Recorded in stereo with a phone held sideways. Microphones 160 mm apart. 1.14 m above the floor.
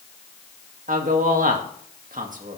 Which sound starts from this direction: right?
A man speaking, at 0.9 s.